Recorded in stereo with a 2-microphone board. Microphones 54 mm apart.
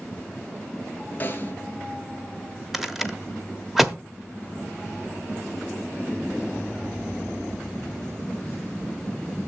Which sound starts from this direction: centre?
A rattle, at 2.7 s.